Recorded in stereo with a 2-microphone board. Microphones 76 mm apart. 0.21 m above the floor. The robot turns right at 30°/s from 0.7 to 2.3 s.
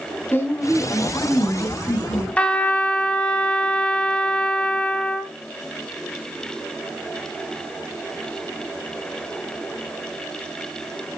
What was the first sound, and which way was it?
A woman speaking, 50° left.